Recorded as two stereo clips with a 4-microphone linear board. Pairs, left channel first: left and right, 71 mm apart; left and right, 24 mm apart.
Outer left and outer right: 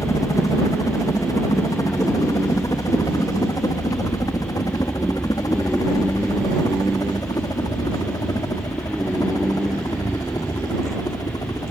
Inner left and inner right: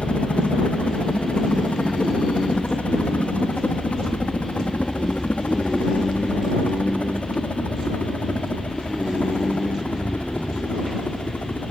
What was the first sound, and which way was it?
A helicopter, 55° left (ahead or behind).